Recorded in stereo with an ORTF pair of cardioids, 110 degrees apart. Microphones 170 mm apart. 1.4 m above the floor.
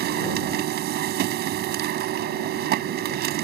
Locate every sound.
0.0 s a machine running: 70° right